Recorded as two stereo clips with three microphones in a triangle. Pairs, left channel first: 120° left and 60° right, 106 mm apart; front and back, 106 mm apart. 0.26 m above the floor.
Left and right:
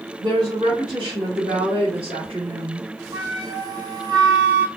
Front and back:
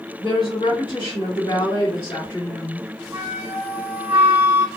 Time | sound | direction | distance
0.2 | a woman speaking | 25° right | 1.9 m
3.1 | a flute | 105° right | 0.9 m